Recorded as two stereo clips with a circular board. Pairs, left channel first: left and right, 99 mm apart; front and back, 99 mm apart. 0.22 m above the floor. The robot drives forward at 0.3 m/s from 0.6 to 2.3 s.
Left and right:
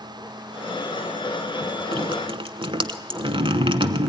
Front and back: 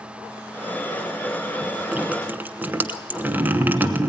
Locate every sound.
1.9 s dripping: 105° right, 1.1 m; by 4.1 s 110° right, 1.2 m